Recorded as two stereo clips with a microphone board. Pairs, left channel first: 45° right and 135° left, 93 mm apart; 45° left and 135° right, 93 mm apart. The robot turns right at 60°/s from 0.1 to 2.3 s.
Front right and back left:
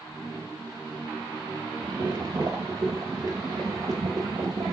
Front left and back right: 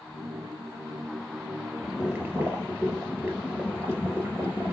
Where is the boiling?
135° left, 3 m; by 4.7 s 165° left, 3 m.